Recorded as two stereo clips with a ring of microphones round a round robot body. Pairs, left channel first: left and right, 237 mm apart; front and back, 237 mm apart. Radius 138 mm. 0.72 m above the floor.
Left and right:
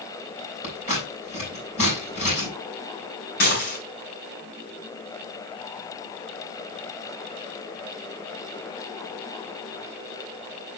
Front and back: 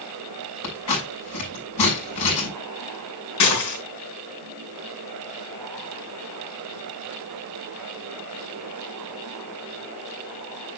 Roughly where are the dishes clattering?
Ahead left.